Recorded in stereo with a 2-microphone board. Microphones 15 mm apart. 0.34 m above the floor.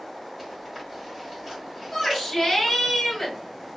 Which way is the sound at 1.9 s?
25° left (ahead or behind).